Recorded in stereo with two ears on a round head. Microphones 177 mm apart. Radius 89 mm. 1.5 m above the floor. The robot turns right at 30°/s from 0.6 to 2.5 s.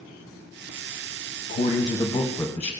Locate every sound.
1.5 s a man speaking: 135° left, 0.8 m; by 2.7 s 165° left, 0.8 m